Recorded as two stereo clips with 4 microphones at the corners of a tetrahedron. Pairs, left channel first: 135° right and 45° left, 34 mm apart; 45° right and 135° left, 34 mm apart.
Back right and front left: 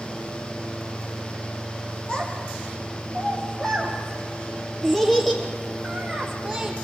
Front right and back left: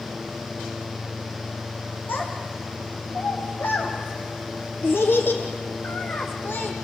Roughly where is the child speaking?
Right.